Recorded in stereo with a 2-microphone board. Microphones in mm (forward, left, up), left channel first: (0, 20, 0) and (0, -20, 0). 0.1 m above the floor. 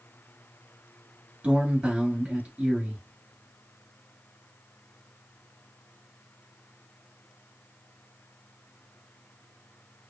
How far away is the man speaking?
About 1.9 m.